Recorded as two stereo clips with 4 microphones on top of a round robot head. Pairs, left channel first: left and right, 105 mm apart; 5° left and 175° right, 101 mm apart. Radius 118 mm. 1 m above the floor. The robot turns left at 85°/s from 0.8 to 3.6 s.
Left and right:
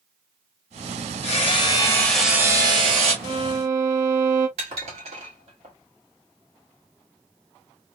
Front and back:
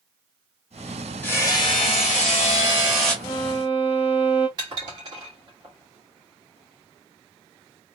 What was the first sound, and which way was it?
Hammering, 80° left.